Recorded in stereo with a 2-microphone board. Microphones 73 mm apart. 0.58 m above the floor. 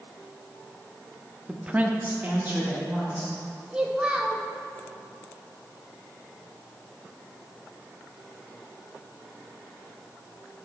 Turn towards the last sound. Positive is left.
turn(degrees=-15)  # may be behind; listen again after turning